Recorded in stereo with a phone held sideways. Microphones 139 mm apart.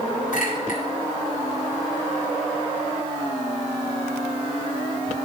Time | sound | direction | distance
0.3 | a clink | 75° left (ahead or behind) | 4 m